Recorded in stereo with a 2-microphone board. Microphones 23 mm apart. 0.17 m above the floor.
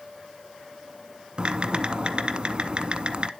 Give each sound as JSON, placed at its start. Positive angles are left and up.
{"t": 1.4, "sound": "typing on a keyboard", "side_deg": -45, "distance_m": 0.6}